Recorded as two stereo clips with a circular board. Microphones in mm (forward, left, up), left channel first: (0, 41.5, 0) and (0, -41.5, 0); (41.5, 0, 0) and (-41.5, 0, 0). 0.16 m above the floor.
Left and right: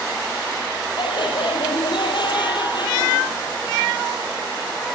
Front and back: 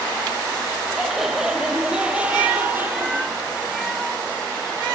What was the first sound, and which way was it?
Laughter, 95° left.